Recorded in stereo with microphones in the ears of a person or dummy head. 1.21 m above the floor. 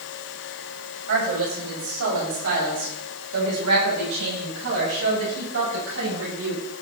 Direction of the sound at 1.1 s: 65° right (ahead or behind).